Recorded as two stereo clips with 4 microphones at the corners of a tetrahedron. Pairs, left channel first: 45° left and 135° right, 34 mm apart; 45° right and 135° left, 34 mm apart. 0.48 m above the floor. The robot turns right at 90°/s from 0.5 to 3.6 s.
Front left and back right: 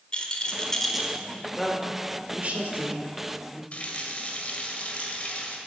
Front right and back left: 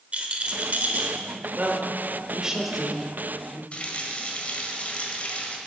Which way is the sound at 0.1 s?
95° left.